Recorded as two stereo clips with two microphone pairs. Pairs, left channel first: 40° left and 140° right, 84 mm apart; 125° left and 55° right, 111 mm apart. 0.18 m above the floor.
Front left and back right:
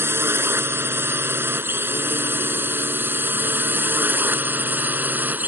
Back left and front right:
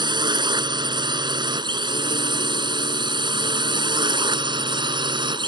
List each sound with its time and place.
0.0 s a drone: 85° right; by 5.5 s 75° right